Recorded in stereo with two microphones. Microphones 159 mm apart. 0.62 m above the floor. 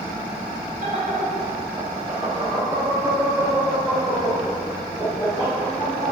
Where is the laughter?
50° right (ahead or behind), 1.7 m; by 6.1 s 35° left (ahead or behind), 2.5 m.